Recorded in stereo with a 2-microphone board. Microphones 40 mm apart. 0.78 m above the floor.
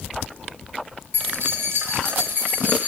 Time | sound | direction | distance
1.1 | keys jangling | 75° right (ahead or behind) | 2 m